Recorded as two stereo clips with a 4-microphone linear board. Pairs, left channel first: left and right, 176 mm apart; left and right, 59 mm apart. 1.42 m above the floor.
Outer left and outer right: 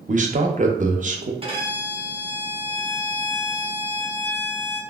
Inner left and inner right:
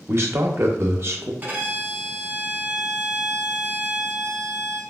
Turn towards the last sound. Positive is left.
turn(degrees=-30)  # may be behind; listen again after turning